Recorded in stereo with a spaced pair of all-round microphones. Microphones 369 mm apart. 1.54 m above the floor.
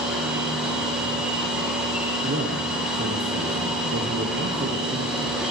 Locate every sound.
0.0 s a machine running: centre (ahead or behind), 1.5 m
2.2 s a man speaking: 35° right (ahead or behind), 0.9 m